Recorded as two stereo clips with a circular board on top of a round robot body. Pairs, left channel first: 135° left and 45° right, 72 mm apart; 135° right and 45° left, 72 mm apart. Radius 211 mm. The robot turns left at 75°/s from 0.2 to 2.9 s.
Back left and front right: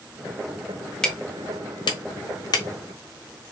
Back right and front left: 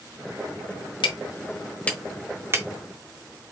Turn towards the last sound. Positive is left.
turn(degrees=75)